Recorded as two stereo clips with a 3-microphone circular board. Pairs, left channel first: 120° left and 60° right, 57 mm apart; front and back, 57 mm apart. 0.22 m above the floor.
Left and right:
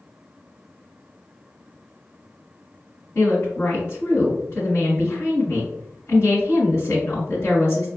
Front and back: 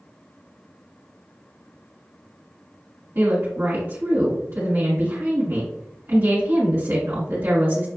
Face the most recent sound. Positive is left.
turn(degrees=145)